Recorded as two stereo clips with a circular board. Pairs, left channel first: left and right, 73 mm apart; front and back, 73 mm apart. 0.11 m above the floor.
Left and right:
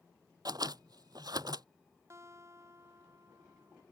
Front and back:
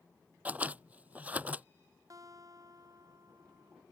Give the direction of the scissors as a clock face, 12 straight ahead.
4 o'clock.